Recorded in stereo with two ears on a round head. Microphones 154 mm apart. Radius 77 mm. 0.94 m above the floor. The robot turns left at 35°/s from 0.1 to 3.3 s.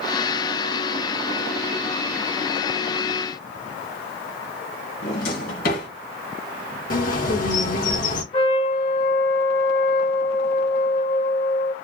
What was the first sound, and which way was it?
A drawer, 55° left (ahead or behind).